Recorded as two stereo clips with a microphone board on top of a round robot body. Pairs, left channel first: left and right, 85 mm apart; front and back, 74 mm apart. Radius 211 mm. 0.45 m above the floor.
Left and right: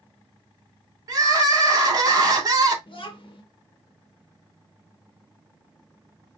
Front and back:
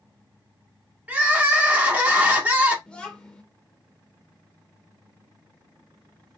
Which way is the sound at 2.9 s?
75° left.